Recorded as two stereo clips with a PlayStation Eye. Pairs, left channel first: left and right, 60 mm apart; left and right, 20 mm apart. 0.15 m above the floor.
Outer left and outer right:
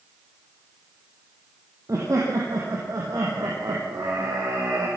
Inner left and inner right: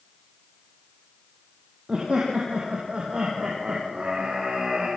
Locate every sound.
1.9 s laughter: 55° right (ahead or behind), 5 m; by 4.9 s 75° right (ahead or behind), 6 m